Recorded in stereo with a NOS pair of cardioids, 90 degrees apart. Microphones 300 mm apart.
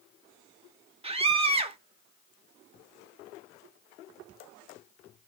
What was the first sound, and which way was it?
A scream, 20° right.